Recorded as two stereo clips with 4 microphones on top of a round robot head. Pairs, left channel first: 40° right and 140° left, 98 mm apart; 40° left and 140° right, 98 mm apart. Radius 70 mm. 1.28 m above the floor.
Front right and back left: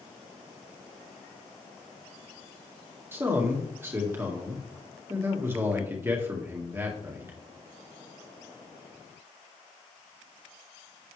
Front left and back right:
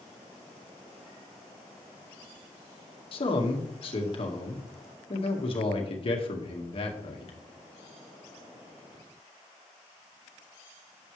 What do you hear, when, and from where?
3.1 s a man speaking: 70° left, 1.8 m